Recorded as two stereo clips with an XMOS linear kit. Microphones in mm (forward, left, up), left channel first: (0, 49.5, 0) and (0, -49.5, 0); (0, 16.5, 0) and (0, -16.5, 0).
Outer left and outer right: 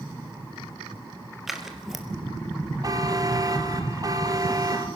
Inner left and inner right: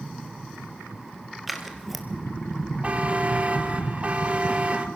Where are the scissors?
Centre (ahead or behind), 2.5 m.